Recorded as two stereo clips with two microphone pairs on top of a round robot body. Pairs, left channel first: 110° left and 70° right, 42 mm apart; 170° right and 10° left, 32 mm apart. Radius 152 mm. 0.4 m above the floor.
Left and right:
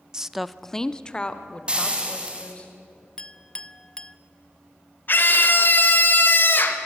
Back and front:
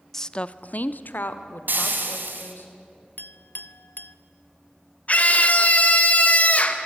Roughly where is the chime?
I don't hear a chime.